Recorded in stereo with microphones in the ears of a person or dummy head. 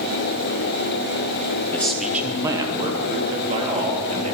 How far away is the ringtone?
No ringtone in this recording.